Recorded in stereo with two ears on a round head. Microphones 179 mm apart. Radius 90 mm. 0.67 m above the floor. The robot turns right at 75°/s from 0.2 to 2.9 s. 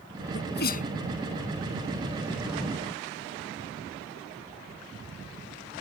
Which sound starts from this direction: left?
A sneeze, at 0.3 s.